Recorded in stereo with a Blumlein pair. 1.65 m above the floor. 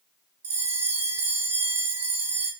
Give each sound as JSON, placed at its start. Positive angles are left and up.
{"t": 0.4, "sound": "a bell", "azimuth_deg": -65, "distance_m": 1.3}